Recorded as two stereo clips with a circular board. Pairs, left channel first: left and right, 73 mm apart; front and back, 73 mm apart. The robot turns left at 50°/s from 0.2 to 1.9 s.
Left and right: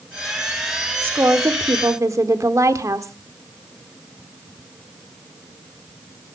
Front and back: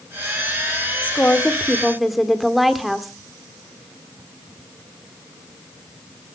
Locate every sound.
1.0 s a woman speaking: 50° right, 1.5 m; by 3.1 s 90° right, 1.5 m